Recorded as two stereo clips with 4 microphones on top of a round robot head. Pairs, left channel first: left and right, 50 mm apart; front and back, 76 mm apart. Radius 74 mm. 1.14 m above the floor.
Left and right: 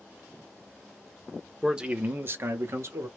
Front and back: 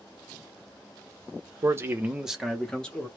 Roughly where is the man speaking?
Behind.